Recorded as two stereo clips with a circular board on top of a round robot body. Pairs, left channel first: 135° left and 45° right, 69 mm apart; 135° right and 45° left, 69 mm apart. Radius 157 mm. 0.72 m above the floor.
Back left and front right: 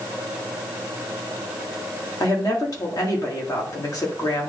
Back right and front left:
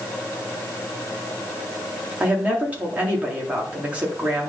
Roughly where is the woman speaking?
Behind left.